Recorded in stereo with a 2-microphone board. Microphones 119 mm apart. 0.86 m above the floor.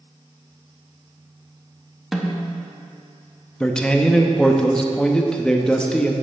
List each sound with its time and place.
2.1 s a snare drum: 5° right (ahead or behind), 1.0 m
3.6 s a man speaking: 5° left (ahead or behind), 0.7 m